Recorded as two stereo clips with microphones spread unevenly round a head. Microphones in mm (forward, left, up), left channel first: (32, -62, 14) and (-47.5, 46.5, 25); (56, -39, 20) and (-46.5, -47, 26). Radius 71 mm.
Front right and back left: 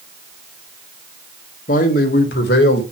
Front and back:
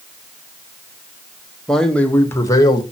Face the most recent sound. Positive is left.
turn(degrees=-45)